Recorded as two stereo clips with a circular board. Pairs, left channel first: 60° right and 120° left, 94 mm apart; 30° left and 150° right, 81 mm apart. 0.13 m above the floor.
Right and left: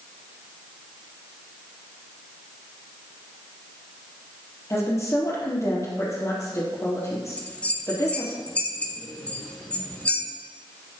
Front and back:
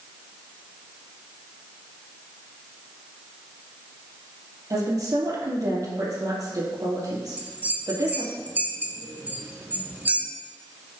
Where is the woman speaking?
115° right, 3.5 m.